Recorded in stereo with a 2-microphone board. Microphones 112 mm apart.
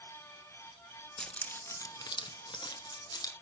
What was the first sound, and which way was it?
Keys jangling, 5° left (ahead or behind).